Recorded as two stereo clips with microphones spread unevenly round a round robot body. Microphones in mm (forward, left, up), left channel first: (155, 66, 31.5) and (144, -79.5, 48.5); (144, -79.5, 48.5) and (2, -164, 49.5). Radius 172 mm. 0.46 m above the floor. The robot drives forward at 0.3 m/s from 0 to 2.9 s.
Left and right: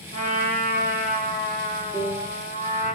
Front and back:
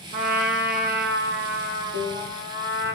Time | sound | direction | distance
0.1 | a trumpet | 140° right | 4 m
1.9 | a piano | 170° right | 6 m